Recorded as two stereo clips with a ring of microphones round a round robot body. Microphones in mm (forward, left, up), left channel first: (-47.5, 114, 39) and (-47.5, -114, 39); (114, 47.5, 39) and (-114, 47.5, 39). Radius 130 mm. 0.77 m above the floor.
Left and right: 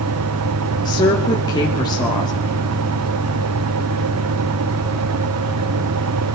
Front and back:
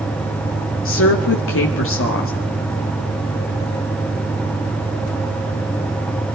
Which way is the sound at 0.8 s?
20° left.